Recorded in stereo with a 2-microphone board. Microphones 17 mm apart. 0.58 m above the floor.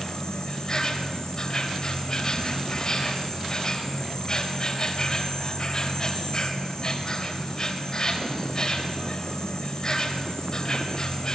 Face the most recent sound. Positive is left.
turn(degrees=40)  # may be behind; listen again after turning